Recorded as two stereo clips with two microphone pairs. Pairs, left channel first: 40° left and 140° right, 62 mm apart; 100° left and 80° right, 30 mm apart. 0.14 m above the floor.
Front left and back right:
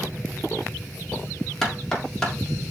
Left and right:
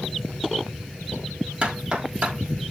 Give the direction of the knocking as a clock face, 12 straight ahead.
1 o'clock.